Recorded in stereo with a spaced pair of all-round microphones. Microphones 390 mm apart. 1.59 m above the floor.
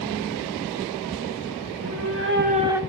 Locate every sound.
1.7 s a cat meowing: 40° right (ahead or behind), 1.9 m; by 2.8 s 5° right (ahead or behind), 0.9 m